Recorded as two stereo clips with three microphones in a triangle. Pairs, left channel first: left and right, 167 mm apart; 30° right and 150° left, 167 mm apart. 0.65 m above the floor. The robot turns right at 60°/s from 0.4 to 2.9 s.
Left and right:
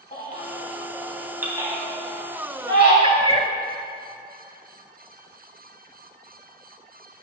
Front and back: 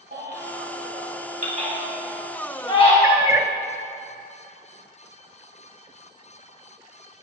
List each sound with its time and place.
0.1 s a baby crying: 130° left, 3 m; by 2.9 s 80° right, 3 m
3.0 s a cat meowing: 140° right, 0.7 m